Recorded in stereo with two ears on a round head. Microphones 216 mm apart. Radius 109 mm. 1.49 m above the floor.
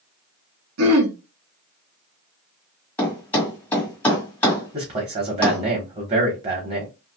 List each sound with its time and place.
0.8 s throat clearing: 65° right (ahead or behind), 1.2 m
3.0 s a thud: 5° left (ahead or behind), 1.9 m
4.7 s a man speaking: 25° right (ahead or behind), 1.3 m